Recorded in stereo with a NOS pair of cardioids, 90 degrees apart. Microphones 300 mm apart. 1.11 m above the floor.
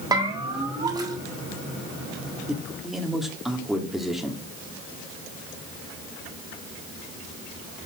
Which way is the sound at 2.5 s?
Straight ahead.